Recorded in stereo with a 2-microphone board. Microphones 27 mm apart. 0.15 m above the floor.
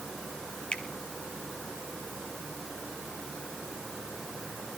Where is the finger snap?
40° left (ahead or behind), 2.5 m.